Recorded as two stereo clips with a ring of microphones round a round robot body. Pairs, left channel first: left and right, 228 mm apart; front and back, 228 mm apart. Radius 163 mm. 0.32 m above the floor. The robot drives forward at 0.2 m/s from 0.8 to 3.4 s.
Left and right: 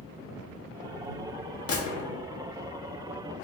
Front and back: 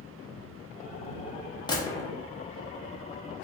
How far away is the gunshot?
About 0.8 m.